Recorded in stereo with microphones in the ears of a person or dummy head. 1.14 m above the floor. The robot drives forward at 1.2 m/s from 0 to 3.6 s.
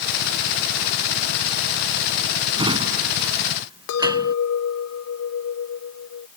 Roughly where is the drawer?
Right.